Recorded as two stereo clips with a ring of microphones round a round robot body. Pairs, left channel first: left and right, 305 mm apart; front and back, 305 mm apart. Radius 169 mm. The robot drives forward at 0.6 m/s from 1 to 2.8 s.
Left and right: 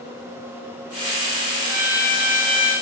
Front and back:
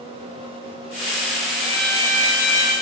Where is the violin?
80° right, 3.5 m; by 2.7 s 90° right, 3.5 m.